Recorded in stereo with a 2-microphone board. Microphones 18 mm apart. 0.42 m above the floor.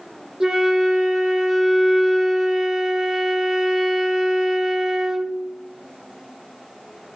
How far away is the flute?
About 0.5 m.